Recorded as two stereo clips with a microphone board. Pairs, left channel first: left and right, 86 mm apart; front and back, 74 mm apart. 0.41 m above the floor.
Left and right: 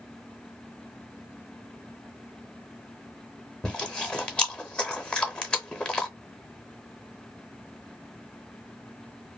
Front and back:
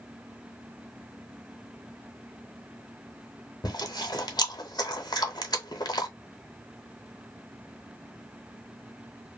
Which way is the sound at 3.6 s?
10° left.